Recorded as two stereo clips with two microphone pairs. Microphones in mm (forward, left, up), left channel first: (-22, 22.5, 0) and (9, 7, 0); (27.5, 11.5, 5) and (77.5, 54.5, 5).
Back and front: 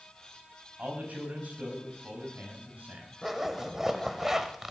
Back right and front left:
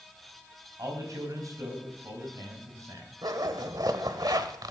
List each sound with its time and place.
0.8 s a man speaking: 10° left, 4.5 m
3.2 s a zipper: 55° left, 1.1 m